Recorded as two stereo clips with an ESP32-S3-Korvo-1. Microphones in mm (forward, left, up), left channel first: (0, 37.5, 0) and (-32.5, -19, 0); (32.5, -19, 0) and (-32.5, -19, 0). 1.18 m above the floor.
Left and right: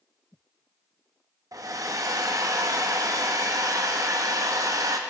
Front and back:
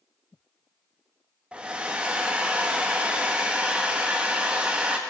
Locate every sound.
1.5 s a hair dryer: 110° right, 0.7 m